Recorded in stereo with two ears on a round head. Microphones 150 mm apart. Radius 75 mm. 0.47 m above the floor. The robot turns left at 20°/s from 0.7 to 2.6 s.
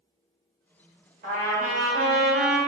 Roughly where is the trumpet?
Right.